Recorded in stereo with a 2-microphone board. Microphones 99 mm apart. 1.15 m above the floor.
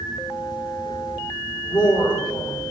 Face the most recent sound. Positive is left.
turn(degrees=45)  # may be behind; listen again after turning